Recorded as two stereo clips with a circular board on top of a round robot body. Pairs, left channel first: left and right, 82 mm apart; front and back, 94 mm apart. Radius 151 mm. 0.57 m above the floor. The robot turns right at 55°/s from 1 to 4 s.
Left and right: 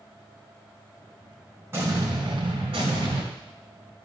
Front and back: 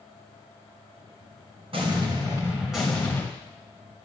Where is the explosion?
150° right, 2.5 m; by 3.2 s 70° right, 2.5 m.